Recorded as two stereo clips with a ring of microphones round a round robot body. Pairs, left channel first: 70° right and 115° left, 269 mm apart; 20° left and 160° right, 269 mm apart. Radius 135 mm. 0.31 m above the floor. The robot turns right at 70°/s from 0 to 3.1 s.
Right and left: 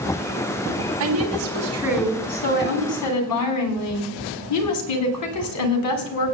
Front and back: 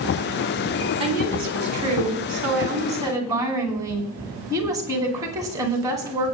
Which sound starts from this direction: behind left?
A woman speaking, at 1.0 s.